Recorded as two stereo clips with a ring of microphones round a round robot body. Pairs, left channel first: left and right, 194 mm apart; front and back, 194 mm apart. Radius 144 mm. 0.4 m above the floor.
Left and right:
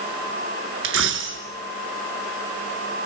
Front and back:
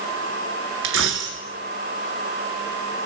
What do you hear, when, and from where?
0.8 s a dropped coin: 135° right, 1.8 m